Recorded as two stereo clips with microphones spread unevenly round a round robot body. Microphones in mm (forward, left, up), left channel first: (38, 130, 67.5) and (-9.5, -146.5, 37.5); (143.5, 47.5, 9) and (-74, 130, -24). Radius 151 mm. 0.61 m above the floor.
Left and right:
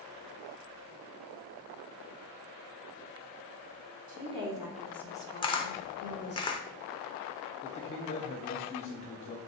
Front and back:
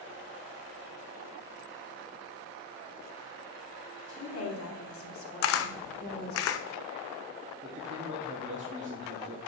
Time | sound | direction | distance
4.1 | a woman speaking | 50° right | 1.2 m
5.4 | a camera shutter | 5° left | 0.5 m
7.6 | a man speaking | 145° left | 0.6 m